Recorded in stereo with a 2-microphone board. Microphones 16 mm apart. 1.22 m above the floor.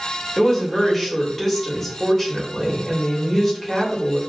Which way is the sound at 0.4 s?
15° left (ahead or behind).